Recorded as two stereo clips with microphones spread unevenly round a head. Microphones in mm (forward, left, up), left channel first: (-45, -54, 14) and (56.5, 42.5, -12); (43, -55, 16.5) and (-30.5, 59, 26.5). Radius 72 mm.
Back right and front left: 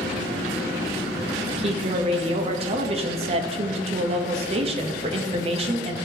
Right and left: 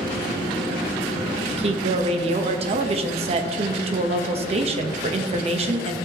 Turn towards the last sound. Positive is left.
turn(degrees=80)